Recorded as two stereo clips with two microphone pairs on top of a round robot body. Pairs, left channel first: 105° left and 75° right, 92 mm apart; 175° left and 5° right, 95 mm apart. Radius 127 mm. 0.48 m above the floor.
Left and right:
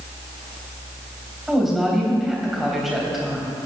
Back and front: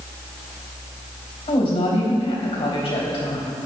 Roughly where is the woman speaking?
Behind.